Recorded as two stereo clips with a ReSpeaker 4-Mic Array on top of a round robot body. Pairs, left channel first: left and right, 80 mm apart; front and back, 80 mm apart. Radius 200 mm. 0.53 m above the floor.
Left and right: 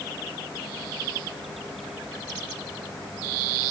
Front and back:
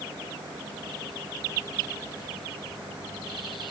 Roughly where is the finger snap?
No finger snap in this recording.